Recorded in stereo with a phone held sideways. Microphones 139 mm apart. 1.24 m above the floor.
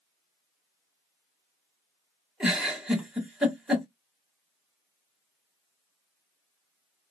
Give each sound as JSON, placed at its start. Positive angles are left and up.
{"t": 2.4, "sound": "a giggle", "side_deg": -5, "distance_m": 1.2}